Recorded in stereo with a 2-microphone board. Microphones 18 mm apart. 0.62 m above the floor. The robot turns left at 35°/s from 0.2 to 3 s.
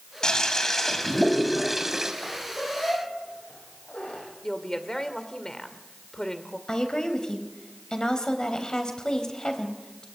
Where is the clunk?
No clunk in this recording.